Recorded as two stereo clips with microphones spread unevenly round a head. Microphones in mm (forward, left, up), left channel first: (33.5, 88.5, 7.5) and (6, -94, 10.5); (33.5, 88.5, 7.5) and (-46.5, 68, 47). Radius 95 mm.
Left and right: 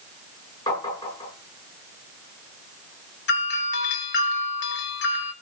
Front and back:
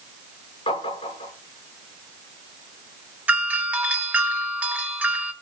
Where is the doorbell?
115° left, 3 m.